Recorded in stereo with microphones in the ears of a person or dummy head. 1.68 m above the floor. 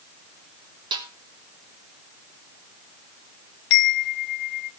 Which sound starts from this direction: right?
A snare drum, at 0.9 s.